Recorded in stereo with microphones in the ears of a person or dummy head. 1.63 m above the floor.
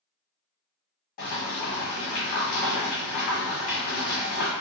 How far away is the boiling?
About 1.0 m.